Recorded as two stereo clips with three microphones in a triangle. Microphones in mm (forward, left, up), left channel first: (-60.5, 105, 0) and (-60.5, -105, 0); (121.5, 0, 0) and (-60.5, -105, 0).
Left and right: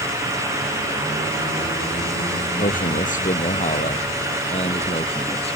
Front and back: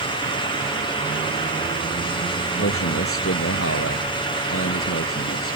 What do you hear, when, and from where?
2.6 s a man speaking: 40° left; by 5.6 s 30° left